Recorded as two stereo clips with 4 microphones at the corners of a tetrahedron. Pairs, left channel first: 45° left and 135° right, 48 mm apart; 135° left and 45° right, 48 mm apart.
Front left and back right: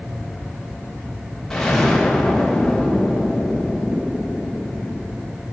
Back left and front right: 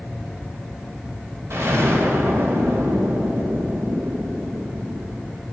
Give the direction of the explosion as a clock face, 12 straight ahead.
1 o'clock.